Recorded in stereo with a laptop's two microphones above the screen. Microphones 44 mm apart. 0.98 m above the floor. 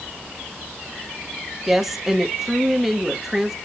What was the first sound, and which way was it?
A woman speaking, 5° right (ahead or behind).